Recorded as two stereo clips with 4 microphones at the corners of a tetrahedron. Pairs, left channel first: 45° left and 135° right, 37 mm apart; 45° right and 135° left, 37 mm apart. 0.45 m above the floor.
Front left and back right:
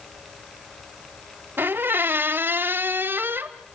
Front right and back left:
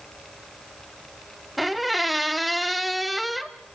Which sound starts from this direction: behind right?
A squeak, at 1.6 s.